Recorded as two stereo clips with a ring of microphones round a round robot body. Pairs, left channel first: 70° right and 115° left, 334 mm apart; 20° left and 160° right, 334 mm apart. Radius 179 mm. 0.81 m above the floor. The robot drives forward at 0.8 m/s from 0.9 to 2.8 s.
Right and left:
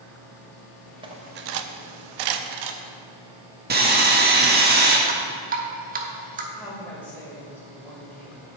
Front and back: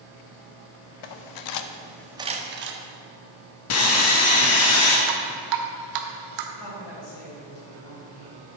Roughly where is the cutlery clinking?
Ahead left.